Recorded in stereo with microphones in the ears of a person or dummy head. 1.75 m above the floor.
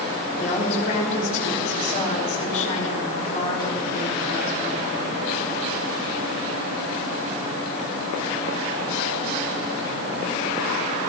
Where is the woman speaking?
45° left (ahead or behind), 5.5 m.